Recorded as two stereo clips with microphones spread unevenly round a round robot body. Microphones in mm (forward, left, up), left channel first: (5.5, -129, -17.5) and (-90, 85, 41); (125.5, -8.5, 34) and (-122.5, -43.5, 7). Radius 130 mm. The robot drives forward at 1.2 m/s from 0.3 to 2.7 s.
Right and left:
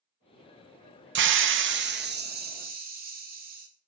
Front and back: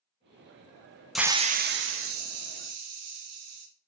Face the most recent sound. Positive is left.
turn(degrees=170)